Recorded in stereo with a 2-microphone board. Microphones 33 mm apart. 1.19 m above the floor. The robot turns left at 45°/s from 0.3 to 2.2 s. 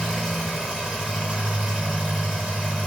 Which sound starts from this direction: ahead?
An engine running, at 0.0 s.